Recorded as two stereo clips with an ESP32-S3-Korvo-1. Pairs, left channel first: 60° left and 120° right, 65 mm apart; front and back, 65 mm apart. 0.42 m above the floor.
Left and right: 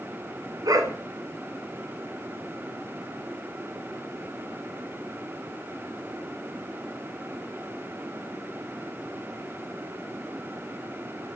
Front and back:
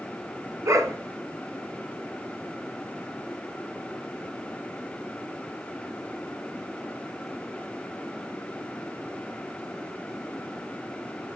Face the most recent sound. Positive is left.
turn(degrees=-135)